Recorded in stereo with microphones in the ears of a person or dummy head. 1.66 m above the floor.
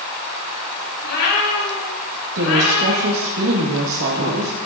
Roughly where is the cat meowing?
Left.